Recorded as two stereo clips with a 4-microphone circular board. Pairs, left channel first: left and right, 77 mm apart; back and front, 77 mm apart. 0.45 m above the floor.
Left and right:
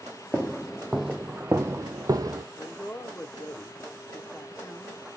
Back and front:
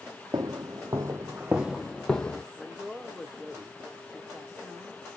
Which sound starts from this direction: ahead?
Footsteps, at 0.3 s.